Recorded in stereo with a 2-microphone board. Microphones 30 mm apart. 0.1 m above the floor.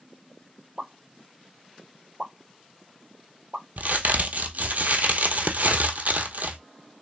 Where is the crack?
70° right (ahead or behind), 0.9 m.